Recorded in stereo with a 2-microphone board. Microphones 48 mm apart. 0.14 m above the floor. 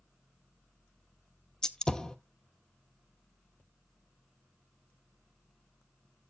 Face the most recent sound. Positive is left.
turn(degrees=15)  # may be behind; listen again after turning